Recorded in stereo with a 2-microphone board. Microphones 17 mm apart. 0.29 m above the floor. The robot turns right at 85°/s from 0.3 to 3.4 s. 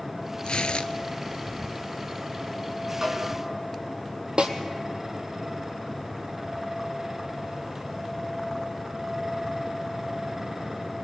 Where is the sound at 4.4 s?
65° right (ahead or behind), 1.6 m.